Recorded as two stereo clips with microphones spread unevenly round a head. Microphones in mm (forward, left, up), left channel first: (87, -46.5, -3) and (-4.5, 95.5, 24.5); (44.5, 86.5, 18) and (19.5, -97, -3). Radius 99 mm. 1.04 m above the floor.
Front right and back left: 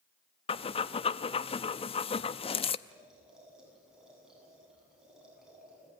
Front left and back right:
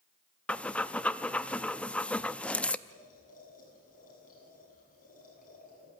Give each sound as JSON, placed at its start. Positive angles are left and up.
{"t": 0.5, "sound": "breathing", "azimuth_deg": 5, "distance_m": 0.6}
{"t": 2.9, "sound": "boiling", "azimuth_deg": 35, "distance_m": 8.0}